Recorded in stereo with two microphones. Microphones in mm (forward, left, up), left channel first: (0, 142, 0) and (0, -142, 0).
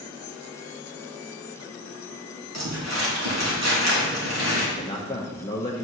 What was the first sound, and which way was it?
Crumpling, 70° right (ahead or behind).